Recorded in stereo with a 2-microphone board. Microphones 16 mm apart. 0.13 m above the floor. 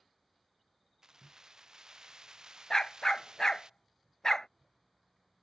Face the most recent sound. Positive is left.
turn(degrees=45)  # may be behind; listen again after turning